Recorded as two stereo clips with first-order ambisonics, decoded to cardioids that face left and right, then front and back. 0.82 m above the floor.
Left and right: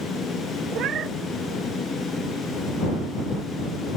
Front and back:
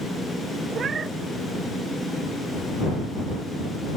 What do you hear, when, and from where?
0.7 s a cat meowing: 125° right